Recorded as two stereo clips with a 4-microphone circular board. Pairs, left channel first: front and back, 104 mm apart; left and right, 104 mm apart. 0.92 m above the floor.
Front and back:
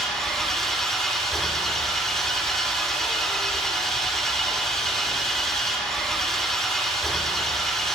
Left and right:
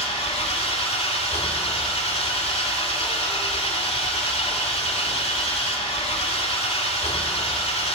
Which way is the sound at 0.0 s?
85° left.